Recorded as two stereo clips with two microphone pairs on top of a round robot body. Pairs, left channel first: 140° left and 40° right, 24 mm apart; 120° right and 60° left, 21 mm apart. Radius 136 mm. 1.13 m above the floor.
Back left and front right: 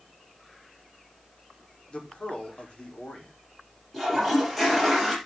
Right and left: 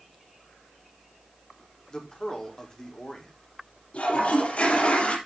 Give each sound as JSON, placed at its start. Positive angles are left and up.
{"t": 1.9, "sound": "a man speaking", "azimuth_deg": -175, "distance_m": 4.0}
{"t": 3.9, "sound": "a toilet flushing", "azimuth_deg": -135, "distance_m": 4.5}